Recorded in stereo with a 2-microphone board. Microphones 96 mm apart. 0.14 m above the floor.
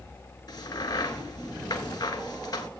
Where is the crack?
50° left (ahead or behind), 1.3 m.